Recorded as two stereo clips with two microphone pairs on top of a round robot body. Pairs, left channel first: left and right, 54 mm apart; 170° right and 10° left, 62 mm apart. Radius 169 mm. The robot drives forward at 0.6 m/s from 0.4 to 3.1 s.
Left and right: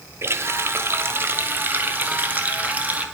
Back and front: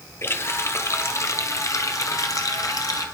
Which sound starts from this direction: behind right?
A running tap, at 0.2 s.